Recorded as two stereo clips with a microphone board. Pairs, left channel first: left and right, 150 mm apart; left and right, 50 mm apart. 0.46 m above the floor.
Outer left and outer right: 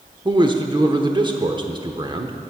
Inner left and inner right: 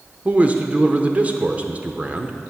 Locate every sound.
0.2 s a man speaking: 30° right (ahead or behind), 0.8 m